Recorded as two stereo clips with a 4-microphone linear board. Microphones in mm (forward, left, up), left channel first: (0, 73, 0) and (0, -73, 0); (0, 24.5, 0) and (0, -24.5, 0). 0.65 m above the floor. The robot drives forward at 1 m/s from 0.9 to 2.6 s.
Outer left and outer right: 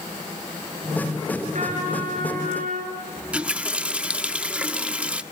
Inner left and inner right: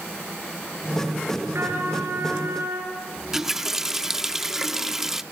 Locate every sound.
1.5 s a trumpet: 60° right (ahead or behind), 6 m; by 3.0 s 70° right (ahead or behind), 5.5 m
3.2 s a running tap: 10° right (ahead or behind), 0.7 m